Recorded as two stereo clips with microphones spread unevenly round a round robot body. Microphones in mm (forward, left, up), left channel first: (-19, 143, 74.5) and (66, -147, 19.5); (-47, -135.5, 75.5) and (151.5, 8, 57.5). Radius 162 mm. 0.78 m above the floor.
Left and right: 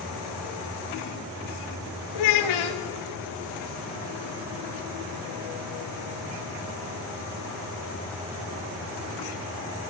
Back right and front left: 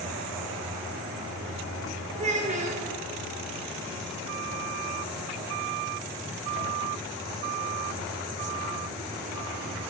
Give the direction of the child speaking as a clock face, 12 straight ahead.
9 o'clock.